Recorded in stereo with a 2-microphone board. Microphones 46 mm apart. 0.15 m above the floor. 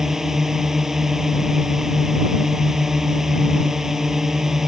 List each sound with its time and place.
0.0 s a drone: 10° right (ahead or behind)